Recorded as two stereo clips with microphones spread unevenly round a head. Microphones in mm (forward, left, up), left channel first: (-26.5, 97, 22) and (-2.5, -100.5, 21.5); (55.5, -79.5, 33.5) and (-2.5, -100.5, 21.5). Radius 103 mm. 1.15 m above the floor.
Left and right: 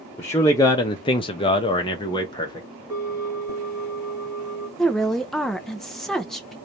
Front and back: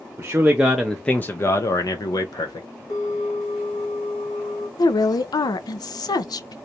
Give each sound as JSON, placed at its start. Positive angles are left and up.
{"t": 0.2, "sound": "a man speaking", "azimuth_deg": 170, "distance_m": 0.8}
{"t": 2.9, "sound": "a bell", "azimuth_deg": 0, "distance_m": 3.0}
{"t": 4.8, "sound": "a woman speaking", "azimuth_deg": 10, "distance_m": 0.6}